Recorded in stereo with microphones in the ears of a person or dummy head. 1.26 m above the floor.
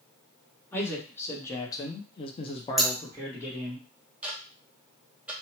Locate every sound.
0.7 s a man speaking: 15° left (ahead or behind), 1.4 m; by 3.8 s 5° left (ahead or behind), 1.1 m
2.8 s scissors: centre (ahead or behind), 0.7 m
4.2 s ticking: 5° right (ahead or behind), 0.5 m